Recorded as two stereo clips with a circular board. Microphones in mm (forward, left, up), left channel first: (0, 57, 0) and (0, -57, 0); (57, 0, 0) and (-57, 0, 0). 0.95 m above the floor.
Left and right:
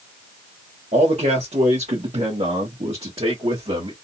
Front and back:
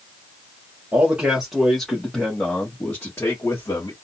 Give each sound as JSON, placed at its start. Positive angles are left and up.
{"t": 0.9, "sound": "a man speaking", "azimuth_deg": -105, "distance_m": 1.9}